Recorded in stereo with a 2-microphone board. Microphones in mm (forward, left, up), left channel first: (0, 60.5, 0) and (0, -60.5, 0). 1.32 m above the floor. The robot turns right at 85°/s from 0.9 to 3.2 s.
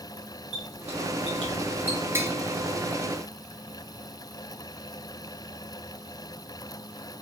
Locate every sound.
0.5 s a squeak: 65° right (ahead or behind), 1.5 m; by 2.0 s 5° right (ahead or behind), 1.5 m
2.1 s tapping: 20° right (ahead or behind), 0.5 m; by 2.3 s 15° right (ahead or behind), 0.5 m